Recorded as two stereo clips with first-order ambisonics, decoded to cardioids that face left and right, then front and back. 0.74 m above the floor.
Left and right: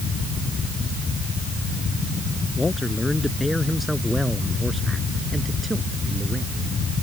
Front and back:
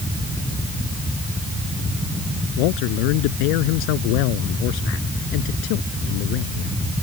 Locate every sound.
2.6 s a man speaking: 10° left; by 6.7 s 15° right